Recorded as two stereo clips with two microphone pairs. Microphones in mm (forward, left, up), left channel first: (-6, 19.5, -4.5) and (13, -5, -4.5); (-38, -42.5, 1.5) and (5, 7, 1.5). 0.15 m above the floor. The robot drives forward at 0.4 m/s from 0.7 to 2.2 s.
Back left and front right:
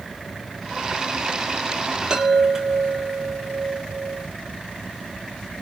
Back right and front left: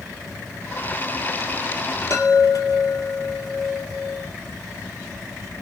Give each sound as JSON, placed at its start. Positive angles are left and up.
{"t": 2.1, "sound": "a chime", "azimuth_deg": -125, "distance_m": 0.8}